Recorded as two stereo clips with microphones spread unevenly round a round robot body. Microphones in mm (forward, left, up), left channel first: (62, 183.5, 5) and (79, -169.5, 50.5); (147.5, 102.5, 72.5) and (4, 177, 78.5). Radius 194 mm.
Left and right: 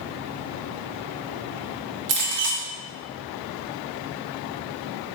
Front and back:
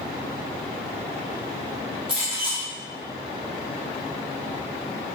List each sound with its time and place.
2.1 s a clink: 150° right, 0.6 m